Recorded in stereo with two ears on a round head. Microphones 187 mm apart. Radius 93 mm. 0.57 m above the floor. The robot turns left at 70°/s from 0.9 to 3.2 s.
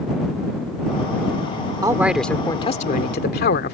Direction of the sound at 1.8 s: 155° right.